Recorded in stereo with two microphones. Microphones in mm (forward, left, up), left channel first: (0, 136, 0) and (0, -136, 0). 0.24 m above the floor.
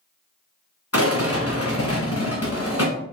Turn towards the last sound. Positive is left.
turn(degrees=60)  # may be behind; listen again after turning